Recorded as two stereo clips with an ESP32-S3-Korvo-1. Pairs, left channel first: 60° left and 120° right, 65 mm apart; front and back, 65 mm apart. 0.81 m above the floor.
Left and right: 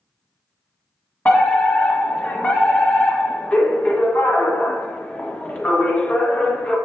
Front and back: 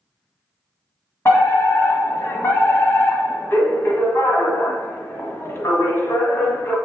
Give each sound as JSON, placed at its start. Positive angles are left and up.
{"t": 1.2, "sound": "a fire alarm", "azimuth_deg": 0, "distance_m": 1.6}